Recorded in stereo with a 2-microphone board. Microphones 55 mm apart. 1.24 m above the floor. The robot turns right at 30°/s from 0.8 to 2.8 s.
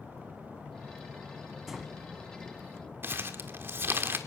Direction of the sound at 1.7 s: 5° right (ahead or behind).